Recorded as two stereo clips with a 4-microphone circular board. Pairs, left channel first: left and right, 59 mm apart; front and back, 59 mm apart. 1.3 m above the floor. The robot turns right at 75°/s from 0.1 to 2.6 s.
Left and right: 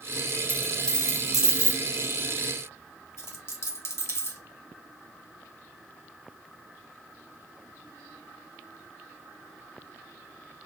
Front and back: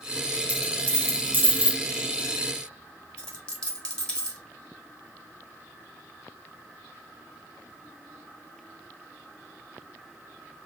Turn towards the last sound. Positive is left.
turn(degrees=70)